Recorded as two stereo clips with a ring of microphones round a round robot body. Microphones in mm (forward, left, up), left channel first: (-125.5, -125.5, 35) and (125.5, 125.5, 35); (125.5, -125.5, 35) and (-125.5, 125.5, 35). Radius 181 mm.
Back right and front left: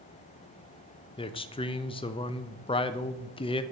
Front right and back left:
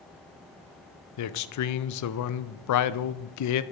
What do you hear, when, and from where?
1.2 s a man speaking: 65° right, 0.5 m